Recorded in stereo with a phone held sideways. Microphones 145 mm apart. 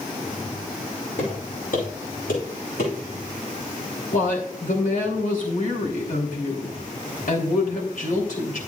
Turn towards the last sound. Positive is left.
turn(degrees=70)  # may be behind; listen again after turning